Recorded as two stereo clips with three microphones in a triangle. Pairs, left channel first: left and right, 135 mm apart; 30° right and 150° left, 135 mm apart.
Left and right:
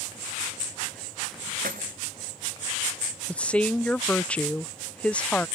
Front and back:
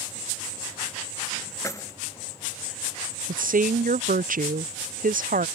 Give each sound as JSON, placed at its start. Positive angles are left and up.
{"t": 1.6, "sound": "keys jangling", "azimuth_deg": -100}
{"t": 3.3, "sound": "a woman speaking", "azimuth_deg": 170}